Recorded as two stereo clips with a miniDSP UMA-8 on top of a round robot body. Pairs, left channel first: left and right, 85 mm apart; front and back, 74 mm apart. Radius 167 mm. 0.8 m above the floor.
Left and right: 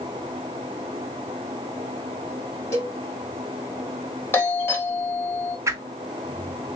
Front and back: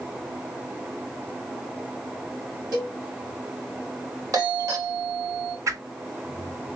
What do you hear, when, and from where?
2.7 s a cowbell: 145° left, 2 m
4.3 s a doorbell: 150° left, 2 m
5.7 s a whoosh: 140° right, 1.0 m